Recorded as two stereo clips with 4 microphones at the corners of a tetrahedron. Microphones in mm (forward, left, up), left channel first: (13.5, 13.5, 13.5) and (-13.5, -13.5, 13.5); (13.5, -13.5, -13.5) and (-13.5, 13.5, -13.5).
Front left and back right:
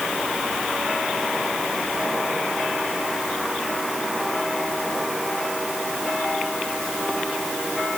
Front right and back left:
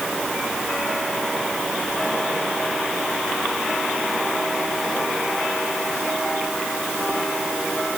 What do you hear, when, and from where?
Only background noise.